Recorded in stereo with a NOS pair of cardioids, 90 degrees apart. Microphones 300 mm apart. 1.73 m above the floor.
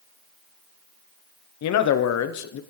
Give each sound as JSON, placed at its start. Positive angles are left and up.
{"t": 1.6, "sound": "a man speaking", "azimuth_deg": 60, "distance_m": 0.9}